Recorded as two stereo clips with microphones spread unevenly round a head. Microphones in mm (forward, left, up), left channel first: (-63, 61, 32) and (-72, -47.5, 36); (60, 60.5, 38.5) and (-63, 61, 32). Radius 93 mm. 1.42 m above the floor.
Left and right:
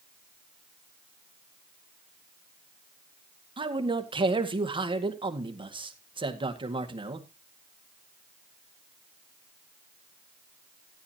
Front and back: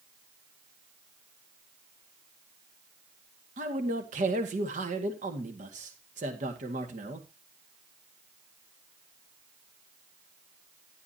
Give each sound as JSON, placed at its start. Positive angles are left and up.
{"t": 3.6, "sound": "a man speaking", "azimuth_deg": -140, "distance_m": 1.9}